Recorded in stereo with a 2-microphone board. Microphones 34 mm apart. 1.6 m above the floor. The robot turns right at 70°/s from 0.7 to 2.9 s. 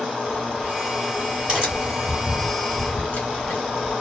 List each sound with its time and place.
0.3 s a crack: 60° right (ahead or behind), 2.5 m; by 3.9 s 50° left (ahead or behind), 2.5 m